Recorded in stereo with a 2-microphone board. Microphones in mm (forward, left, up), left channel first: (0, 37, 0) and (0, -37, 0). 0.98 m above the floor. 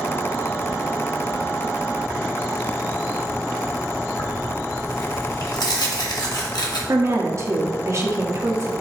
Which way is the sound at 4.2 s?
80° left.